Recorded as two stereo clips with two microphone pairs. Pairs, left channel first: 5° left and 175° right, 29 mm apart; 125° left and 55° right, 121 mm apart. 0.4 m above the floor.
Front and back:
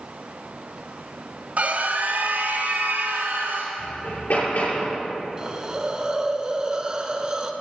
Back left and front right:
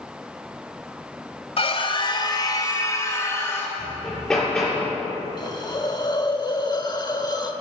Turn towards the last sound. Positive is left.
turn(degrees=135)